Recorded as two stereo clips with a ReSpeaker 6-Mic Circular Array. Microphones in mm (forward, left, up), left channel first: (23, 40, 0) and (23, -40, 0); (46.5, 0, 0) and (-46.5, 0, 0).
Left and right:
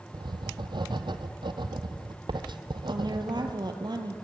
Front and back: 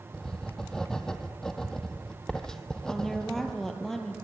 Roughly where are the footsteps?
No footsteps in this recording.